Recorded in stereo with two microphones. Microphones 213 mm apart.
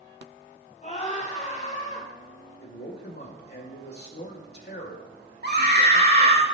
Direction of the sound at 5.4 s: 50° right (ahead or behind).